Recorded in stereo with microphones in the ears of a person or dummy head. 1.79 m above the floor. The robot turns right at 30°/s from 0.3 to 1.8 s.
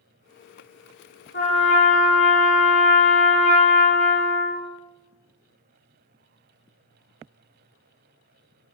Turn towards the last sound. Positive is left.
turn(degrees=30)  # may be behind; listen again after turning